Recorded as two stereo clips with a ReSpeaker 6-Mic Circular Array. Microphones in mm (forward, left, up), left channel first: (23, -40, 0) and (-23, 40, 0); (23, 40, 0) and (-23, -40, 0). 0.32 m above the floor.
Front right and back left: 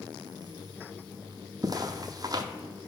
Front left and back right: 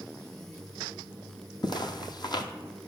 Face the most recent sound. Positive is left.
turn(degrees=85)